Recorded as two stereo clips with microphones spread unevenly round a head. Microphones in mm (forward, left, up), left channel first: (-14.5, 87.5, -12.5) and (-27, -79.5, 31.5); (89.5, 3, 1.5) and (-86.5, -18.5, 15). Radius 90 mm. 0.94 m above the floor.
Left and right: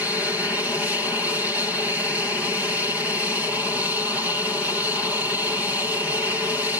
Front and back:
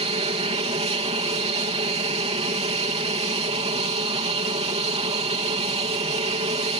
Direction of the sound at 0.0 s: 165° left.